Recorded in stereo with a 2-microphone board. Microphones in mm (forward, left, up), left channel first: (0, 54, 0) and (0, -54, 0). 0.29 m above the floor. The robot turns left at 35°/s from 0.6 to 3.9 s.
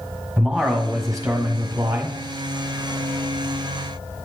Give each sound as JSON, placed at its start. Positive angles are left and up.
{"t": 0.4, "sound": "a man speaking", "azimuth_deg": 15, "distance_m": 1.4}